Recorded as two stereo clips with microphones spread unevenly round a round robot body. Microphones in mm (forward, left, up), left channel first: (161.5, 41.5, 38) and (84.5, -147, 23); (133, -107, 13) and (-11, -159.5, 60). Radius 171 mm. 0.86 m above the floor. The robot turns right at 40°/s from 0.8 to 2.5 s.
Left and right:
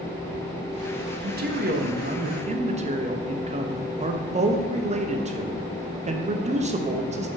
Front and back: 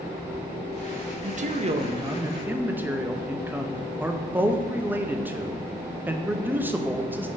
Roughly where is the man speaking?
Behind right.